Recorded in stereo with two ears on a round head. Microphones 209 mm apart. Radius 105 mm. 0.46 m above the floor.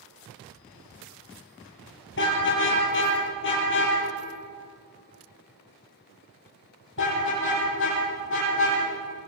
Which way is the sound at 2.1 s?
50° left (ahead or behind).